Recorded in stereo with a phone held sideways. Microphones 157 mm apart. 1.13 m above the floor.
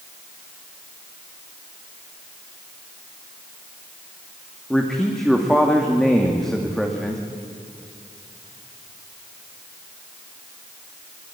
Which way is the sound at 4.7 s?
Centre (ahead or behind).